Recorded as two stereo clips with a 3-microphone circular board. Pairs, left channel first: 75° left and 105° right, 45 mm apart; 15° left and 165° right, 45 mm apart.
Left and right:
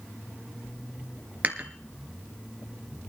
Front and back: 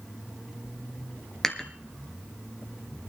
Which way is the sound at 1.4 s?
60° right.